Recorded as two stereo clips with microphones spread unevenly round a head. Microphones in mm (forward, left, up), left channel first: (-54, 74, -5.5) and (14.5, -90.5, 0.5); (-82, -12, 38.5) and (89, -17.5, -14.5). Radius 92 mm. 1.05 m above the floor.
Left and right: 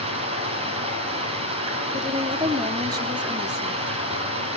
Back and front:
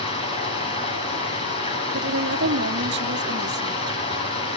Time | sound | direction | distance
0.0 | running water | 125° right | 8 m
1.9 | a woman speaking | 5° left | 2.5 m